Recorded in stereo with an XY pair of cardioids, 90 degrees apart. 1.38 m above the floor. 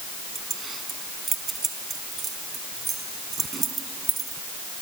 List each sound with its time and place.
0.3 s keys jangling: 40° right